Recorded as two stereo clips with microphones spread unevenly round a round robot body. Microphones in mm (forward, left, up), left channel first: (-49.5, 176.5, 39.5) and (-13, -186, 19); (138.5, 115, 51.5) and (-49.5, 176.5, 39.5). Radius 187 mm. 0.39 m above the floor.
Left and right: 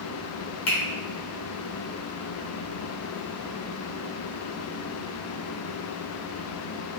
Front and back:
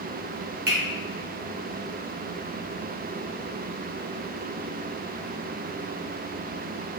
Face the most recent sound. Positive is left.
turn(degrees=150)